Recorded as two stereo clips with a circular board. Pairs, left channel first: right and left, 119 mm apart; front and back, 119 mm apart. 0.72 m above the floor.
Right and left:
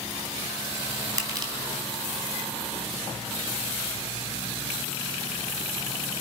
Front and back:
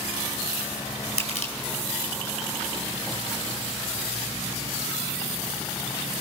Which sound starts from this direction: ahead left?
Crushing, at 1.2 s.